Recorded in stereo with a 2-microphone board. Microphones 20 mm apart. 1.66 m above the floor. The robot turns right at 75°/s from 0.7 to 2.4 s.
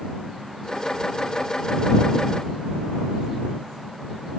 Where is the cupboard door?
I don't hear a cupboard door.